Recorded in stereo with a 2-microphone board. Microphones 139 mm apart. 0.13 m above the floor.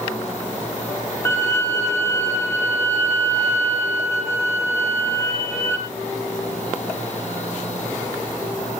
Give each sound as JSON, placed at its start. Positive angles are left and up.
{"t": 1.2, "sound": "a violin", "side_deg": 20, "distance_m": 4.0}